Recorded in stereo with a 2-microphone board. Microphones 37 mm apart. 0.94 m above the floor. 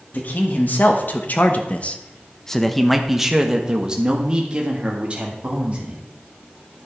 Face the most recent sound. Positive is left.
turn(degrees=-35)  # may be behind; listen again after turning